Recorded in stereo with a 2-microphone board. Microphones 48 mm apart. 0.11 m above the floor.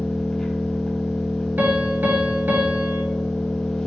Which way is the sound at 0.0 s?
10° left (ahead or behind).